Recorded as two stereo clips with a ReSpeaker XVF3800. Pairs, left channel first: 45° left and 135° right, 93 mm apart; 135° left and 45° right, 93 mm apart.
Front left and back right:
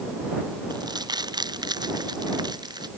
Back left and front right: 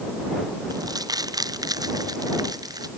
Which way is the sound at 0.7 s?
95° right.